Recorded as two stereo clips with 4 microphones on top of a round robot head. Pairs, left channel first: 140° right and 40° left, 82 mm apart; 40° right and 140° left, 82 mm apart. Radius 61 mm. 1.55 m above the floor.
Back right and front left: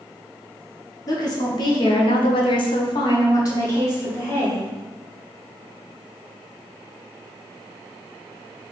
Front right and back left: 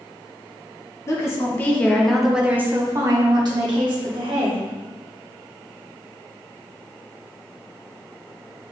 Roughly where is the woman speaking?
Right.